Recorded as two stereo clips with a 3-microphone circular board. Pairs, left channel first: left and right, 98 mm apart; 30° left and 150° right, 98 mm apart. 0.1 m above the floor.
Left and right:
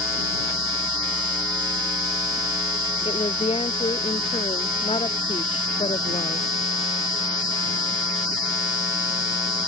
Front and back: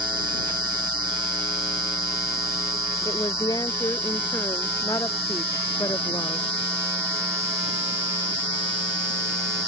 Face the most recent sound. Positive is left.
turn(degrees=85)